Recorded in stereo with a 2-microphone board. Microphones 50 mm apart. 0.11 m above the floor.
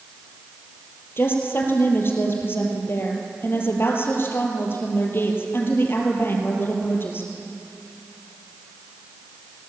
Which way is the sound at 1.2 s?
50° left (ahead or behind).